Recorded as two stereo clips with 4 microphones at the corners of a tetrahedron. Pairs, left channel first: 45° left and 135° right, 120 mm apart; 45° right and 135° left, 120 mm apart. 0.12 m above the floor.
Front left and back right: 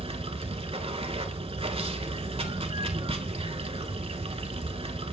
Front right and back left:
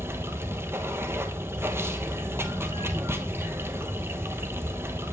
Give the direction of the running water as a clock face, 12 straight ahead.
5 o'clock.